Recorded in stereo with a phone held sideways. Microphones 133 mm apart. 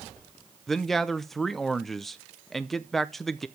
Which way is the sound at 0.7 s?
Centre (ahead or behind).